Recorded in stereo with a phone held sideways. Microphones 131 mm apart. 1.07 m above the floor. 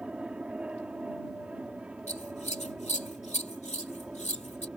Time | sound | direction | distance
0.0 | an aircraft | 10° right (ahead or behind) | ?
2.1 | scissors | 60° left (ahead or behind) | ?